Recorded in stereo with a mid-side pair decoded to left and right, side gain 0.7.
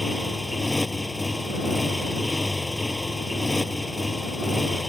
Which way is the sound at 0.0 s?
5° left.